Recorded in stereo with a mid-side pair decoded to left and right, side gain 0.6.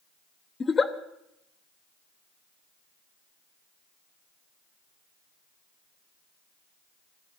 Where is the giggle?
25° left, 1.0 m.